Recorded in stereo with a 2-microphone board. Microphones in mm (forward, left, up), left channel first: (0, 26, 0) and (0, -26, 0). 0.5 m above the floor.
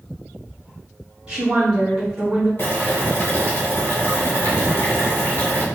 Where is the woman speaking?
20° right (ahead or behind), 0.7 m; by 2.5 s centre (ahead or behind), 1.4 m.